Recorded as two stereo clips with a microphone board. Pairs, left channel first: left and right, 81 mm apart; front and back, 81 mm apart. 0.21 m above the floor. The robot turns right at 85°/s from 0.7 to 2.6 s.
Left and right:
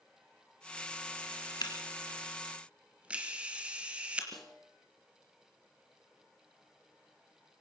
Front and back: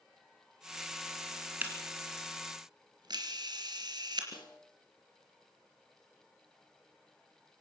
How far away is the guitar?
No guitar in this recording.